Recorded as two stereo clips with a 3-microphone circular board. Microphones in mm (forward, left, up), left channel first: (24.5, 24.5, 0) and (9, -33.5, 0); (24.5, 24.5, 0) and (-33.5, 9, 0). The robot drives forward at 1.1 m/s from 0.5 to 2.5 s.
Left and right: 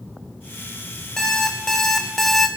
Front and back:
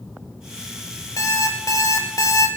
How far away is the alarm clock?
About 3 m.